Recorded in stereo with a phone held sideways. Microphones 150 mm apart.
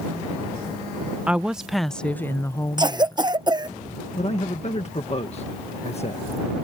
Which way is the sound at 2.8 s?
30° right (ahead or behind).